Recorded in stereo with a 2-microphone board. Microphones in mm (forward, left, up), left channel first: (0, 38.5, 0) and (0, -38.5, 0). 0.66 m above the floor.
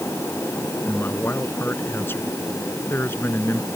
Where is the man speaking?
30° left (ahead or behind).